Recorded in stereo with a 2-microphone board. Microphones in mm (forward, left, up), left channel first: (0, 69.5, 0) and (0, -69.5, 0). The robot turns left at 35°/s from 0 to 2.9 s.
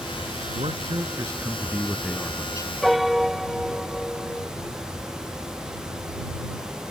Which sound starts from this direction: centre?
A piano, at 2.8 s.